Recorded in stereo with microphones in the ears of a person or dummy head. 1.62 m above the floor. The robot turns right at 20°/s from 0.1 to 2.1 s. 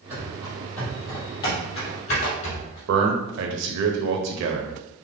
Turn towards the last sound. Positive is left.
turn(degrees=-65)  # may be behind; listen again after turning